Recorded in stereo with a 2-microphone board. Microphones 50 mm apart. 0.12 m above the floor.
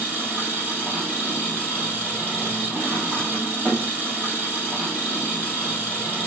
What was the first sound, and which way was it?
An engine running, 30° right (ahead or behind).